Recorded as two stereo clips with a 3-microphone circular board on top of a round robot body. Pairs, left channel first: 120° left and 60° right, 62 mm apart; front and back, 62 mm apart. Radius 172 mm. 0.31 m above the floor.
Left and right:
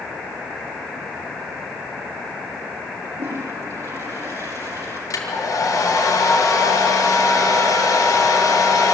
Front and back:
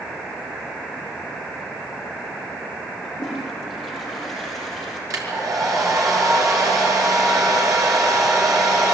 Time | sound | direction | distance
3.0 | a toilet flushing | 85° right | 5 m
5.1 | a hair dryer | 150° left | 5.5 m